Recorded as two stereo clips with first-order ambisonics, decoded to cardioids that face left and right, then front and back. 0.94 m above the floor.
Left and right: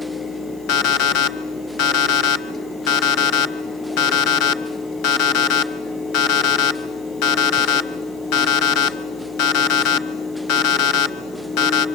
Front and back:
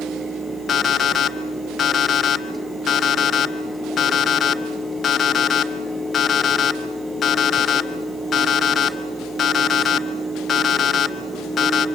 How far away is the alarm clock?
About 1.1 m.